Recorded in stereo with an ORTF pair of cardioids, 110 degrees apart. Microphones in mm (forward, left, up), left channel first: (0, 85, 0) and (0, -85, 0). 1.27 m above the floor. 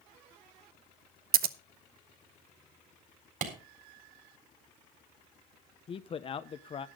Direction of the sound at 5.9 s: 35° left.